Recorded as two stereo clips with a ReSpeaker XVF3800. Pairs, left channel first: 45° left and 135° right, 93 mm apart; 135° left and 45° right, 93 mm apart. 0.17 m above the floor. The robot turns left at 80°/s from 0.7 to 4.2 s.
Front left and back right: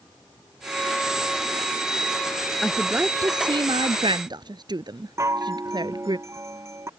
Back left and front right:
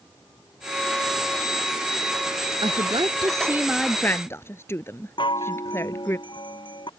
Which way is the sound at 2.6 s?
40° right.